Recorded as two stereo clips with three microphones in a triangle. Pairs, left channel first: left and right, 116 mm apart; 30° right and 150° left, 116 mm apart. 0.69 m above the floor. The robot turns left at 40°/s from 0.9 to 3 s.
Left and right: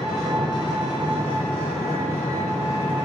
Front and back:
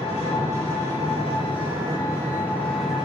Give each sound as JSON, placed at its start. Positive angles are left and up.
{"t": 0.0, "sound": "an engine running", "azimuth_deg": -40, "distance_m": 1.1}